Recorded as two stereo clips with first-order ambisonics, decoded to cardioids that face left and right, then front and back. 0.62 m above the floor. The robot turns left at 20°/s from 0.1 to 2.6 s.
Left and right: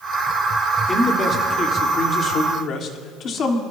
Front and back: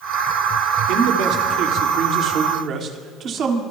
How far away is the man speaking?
About 1.7 m.